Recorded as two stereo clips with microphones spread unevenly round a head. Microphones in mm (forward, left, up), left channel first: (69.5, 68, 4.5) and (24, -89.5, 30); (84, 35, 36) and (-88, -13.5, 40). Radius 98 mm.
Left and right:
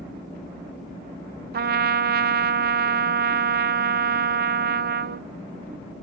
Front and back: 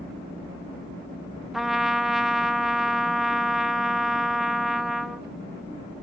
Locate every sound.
1.5 s a trumpet: 75° right, 0.8 m